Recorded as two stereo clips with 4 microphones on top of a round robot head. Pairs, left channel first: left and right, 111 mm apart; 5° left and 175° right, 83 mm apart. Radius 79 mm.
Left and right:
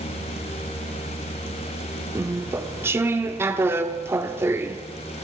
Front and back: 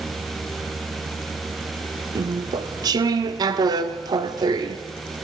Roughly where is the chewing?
Behind right.